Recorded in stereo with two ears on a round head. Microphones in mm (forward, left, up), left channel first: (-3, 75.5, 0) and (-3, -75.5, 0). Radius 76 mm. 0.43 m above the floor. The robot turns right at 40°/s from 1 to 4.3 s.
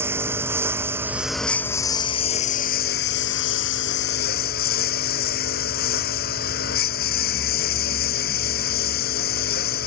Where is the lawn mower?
15° right; by 9.9 s 120° left.